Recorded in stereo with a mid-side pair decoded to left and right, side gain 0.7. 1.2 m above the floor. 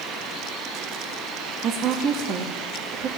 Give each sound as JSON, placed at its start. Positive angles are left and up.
{"t": 1.6, "sound": "a woman speaking", "azimuth_deg": -45, "distance_m": 1.7}